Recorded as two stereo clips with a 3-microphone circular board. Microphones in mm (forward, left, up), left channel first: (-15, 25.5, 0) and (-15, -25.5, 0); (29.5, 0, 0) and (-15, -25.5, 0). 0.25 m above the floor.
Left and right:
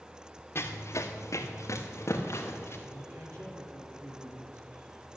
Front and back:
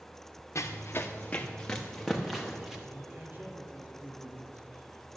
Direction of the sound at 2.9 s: 95° right.